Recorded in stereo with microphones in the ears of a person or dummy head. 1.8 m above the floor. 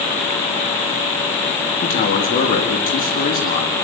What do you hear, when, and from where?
1.8 s a man speaking: 40° left (ahead or behind), 4 m